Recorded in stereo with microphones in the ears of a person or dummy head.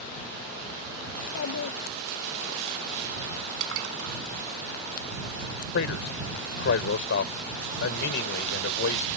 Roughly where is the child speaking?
Left.